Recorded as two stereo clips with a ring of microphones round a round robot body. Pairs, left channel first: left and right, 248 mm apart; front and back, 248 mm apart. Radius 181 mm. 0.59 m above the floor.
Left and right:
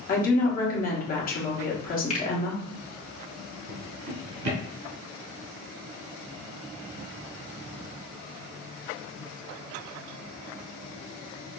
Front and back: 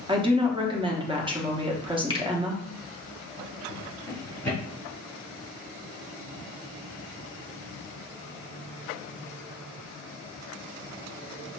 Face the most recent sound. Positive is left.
turn(degrees=-85)